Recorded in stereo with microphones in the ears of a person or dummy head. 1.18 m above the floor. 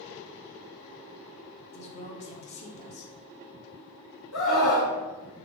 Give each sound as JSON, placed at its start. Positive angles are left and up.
{"t": 1.7, "sound": "a woman speaking", "side_deg": 35, "distance_m": 0.9}
{"t": 4.3, "sound": "a scream", "side_deg": 80, "distance_m": 1.0}